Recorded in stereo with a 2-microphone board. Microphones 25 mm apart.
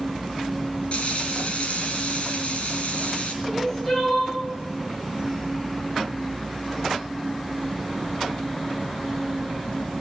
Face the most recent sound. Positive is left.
turn(degrees=25)  # may be behind; listen again after turning